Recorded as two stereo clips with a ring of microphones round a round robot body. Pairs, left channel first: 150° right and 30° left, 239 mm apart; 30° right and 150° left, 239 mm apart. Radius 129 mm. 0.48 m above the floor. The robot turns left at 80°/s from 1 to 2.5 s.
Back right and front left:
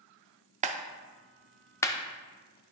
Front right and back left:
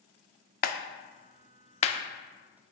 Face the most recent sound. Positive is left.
turn(degrees=-130)